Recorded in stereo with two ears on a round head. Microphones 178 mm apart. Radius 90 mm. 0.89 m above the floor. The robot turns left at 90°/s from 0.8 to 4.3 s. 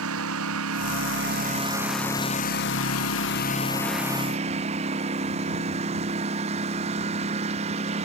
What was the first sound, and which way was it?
A lawn mower, 75° right.